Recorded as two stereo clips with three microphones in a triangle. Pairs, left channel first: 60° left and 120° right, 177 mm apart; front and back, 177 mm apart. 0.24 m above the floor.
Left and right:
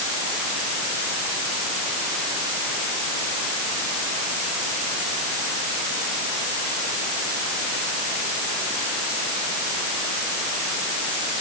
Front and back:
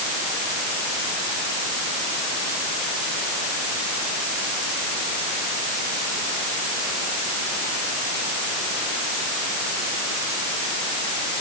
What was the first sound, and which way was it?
Only background noise.